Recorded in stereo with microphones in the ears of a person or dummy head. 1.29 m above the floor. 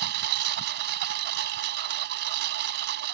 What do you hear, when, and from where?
0.0 s a lawn mower: 60° right (ahead or behind)